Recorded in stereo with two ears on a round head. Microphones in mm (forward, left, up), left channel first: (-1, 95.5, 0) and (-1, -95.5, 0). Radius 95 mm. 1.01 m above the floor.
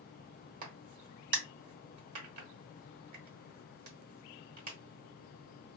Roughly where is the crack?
Right.